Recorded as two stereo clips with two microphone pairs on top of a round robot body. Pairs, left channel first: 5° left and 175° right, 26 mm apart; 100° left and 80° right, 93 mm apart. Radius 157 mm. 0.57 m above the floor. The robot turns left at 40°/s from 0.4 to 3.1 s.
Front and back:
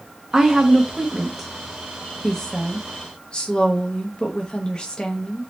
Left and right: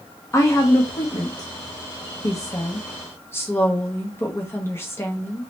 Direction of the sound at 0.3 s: 150° left.